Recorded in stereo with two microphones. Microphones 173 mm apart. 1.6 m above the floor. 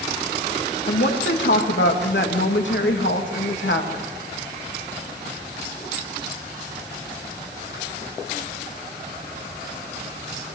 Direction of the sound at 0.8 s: 90° left.